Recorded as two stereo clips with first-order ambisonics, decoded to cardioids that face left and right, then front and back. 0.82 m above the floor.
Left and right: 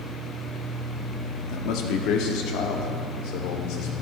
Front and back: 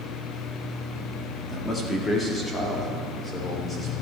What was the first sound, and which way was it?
A man speaking, 70° left.